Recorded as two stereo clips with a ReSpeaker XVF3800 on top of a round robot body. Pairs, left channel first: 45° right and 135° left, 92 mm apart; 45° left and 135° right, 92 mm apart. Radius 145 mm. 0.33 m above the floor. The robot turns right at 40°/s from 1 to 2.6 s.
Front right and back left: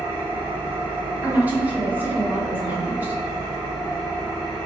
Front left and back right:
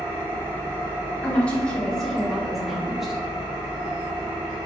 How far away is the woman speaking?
About 1.0 m.